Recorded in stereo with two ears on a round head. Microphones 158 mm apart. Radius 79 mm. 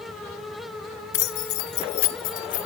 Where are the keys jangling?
70° left (ahead or behind), 1.7 m; by 2.7 s 45° left (ahead or behind), 2.5 m.